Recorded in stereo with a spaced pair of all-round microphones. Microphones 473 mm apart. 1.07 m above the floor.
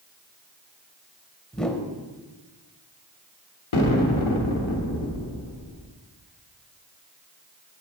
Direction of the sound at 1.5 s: Centre (ahead or behind).